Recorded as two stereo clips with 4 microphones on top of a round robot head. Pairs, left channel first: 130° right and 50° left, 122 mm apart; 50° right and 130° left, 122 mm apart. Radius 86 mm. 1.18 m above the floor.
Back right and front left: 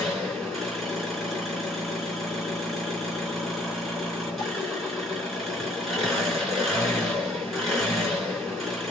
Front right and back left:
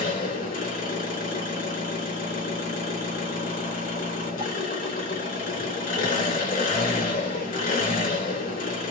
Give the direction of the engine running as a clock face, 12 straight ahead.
1 o'clock.